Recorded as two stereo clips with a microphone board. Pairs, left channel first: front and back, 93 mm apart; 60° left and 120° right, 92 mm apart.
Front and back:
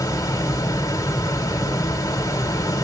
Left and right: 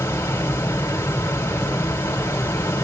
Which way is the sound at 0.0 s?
15° left.